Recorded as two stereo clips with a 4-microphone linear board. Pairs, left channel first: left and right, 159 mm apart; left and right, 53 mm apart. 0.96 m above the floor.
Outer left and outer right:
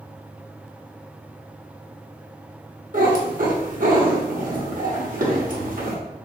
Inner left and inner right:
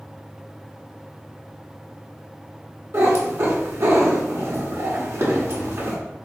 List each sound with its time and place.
2.9 s a cat meowing: 60° right (ahead or behind), 1.1 m